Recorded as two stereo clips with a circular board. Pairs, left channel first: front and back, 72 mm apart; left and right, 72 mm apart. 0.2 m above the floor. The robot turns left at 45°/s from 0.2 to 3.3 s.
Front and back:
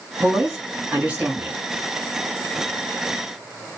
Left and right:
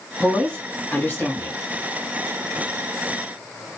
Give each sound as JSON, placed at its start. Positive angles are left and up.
{"t": 0.2, "sound": "a woman speaking", "azimuth_deg": 165, "distance_m": 1.6}